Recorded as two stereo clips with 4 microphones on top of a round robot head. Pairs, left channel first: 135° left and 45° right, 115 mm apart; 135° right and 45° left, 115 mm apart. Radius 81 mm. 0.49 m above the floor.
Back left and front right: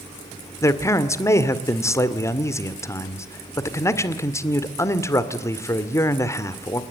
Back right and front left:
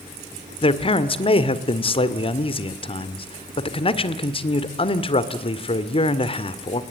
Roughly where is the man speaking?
Behind.